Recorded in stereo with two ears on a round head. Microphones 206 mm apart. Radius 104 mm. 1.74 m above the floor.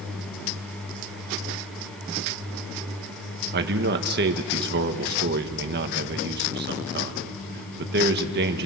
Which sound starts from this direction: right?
A man speaking, at 3.5 s.